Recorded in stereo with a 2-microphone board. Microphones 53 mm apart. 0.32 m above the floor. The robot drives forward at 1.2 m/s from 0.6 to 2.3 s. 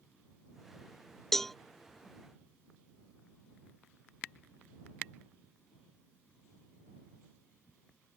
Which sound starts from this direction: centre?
A cowbell, at 1.3 s.